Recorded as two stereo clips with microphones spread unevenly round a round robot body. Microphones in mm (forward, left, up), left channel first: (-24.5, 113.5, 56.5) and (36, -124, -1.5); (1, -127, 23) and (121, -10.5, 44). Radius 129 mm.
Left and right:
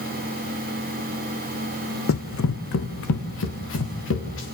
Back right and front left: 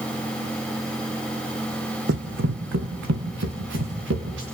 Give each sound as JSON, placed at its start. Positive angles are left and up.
{"t": 2.1, "sound": "running footsteps", "azimuth_deg": 75, "distance_m": 1.8}